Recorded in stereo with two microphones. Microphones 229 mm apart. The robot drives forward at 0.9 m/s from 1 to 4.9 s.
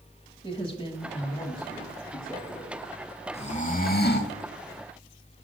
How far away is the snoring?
About 1.1 m.